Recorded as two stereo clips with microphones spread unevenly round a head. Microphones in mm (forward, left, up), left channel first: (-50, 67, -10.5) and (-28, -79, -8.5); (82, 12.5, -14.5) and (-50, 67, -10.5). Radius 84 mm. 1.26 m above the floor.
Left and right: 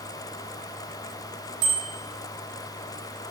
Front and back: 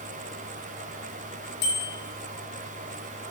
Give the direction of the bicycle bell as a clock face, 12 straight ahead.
2 o'clock.